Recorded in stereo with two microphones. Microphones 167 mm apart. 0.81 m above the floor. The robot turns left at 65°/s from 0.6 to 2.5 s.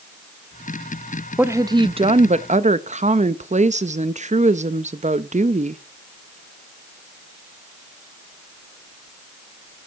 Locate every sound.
1.4 s a woman speaking: 15° right, 0.5 m; by 5.8 s 85° right, 0.5 m